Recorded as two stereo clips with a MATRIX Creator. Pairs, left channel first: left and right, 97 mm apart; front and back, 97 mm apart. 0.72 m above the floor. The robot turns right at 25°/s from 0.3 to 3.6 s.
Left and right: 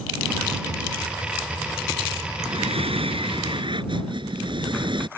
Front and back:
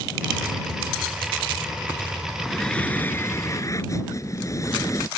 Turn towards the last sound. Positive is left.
turn(degrees=-55)